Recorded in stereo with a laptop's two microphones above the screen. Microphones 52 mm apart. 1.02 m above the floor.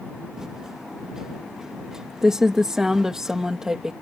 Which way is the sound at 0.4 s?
10° right (ahead or behind).